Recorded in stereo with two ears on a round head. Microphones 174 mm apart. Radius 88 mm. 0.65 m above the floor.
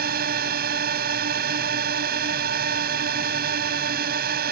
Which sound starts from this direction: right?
A drone, at 0.0 s.